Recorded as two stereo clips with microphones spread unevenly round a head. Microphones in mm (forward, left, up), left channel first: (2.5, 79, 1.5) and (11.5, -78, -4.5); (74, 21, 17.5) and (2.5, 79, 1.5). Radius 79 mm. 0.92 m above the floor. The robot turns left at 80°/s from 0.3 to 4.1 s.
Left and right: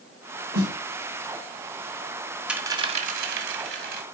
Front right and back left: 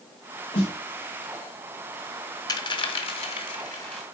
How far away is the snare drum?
About 4.5 m.